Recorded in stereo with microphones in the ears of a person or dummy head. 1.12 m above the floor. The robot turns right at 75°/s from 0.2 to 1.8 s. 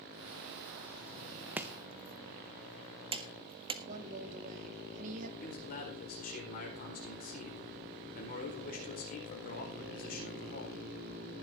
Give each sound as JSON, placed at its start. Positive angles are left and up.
{"t": 1.6, "sound": "chopping", "side_deg": -10, "distance_m": 0.7}
{"t": 3.9, "sound": "a woman speaking", "side_deg": -45, "distance_m": 2.5}
{"t": 5.4, "sound": "a man speaking", "side_deg": 40, "distance_m": 4.5}